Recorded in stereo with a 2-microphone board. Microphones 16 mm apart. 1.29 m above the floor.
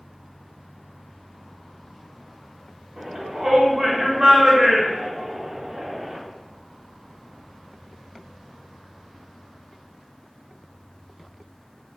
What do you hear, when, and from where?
3.0 s a shout: 55° right (ahead or behind), 1.0 m